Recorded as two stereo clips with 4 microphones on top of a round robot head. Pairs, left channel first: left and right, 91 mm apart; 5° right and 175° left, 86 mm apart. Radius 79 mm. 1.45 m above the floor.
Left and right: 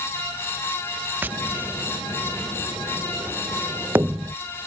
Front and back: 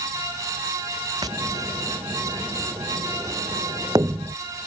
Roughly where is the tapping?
Behind right.